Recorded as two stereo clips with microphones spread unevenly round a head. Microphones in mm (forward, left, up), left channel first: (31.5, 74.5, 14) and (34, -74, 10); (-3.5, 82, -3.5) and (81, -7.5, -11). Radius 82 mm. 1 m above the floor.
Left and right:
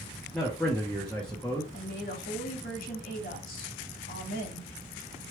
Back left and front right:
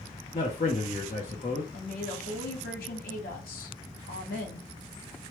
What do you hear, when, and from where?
0.3 s a man speaking: 175° left, 0.6 m
1.7 s a woman speaking: 135° left, 1.4 m